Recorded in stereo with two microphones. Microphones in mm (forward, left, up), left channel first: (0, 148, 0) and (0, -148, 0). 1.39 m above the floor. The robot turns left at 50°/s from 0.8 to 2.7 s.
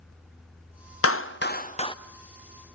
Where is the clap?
50° left (ahead or behind), 0.5 m; by 1.9 s 15° left (ahead or behind), 0.5 m.